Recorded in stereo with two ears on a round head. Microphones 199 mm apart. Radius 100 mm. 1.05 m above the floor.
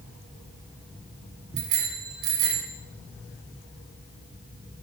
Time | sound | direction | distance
1.6 | a bicycle bell | 80° right | 7.5 m